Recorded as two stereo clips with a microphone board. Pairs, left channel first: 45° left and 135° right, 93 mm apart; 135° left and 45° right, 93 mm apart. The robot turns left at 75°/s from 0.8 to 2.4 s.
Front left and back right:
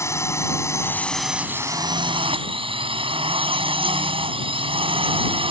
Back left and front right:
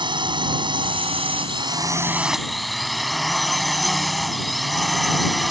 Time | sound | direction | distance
0.0 | a drone | 15° right | ?